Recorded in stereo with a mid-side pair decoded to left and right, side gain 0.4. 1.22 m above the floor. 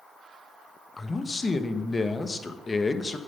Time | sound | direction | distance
1.0 | a man speaking | 35° left | 1.2 m